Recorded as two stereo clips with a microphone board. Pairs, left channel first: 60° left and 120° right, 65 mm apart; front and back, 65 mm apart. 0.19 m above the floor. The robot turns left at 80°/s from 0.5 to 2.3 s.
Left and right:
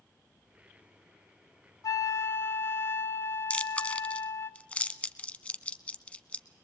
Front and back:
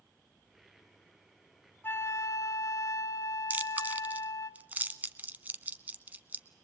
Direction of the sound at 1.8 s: 50° left.